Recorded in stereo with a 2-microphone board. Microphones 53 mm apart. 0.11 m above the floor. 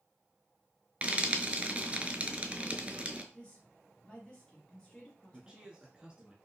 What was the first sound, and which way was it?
Frying, 25° right (ahead or behind).